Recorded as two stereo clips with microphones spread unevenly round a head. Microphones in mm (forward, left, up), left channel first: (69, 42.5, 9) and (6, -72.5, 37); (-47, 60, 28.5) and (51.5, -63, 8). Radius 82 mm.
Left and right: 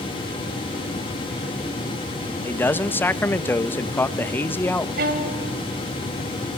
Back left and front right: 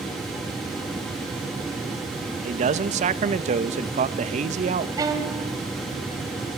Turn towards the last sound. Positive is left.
turn(degrees=-120)